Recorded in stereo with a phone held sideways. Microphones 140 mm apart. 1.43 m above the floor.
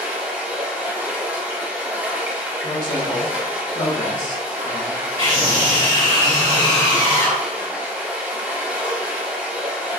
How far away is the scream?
About 0.9 m.